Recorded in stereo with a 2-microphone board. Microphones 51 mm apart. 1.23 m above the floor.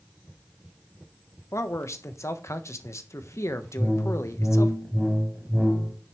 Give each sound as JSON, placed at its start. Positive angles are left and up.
{"t": 1.5, "sound": "a man speaking", "side_deg": 70, "distance_m": 1.3}
{"t": 3.8, "sound": "a whoosh", "side_deg": -5, "distance_m": 3.0}